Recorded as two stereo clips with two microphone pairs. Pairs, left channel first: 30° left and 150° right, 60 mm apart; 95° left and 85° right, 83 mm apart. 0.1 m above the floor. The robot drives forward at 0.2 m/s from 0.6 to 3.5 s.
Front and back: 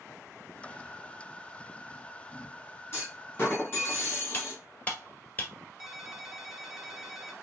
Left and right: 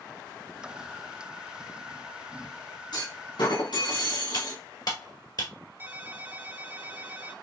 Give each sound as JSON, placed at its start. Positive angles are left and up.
{"t": 2.9, "sound": "a clunk", "azimuth_deg": 85, "distance_m": 3.0}
{"t": 4.3, "sound": "cutlery clinking", "azimuth_deg": 85, "distance_m": 1.3}
{"t": 5.8, "sound": "a ringtone", "azimuth_deg": -75, "distance_m": 0.8}